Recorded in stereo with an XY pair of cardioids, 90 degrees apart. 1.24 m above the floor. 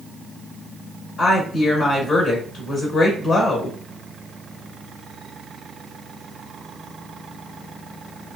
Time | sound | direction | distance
1.2 | a woman speaking | 70° left | 1.1 m